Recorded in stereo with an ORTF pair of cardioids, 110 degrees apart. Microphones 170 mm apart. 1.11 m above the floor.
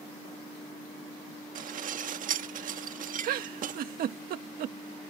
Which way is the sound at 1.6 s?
55° right.